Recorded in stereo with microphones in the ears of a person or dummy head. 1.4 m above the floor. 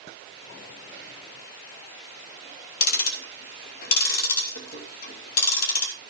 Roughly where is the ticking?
Left.